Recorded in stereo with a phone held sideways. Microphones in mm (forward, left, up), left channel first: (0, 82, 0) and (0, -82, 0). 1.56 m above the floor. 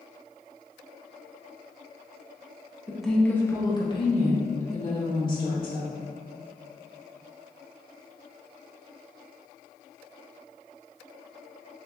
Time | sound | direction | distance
2.9 | a woman speaking | 5° right (ahead or behind) | 1.0 m